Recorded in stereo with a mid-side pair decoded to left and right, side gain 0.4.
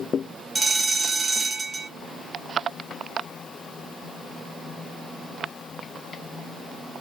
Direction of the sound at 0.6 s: 35° right.